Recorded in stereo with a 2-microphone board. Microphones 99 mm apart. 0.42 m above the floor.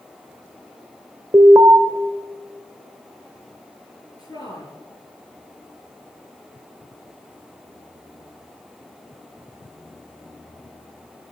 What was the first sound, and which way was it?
An alarm, 35° right (ahead or behind).